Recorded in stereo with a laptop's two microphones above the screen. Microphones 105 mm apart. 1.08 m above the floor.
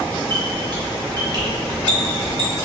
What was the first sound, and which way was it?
A squeak, 40° right (ahead or behind).